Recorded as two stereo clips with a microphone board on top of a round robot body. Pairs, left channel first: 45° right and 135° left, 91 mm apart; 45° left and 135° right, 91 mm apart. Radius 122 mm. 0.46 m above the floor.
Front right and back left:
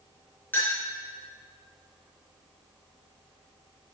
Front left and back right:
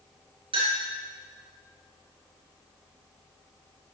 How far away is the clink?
About 5.5 m.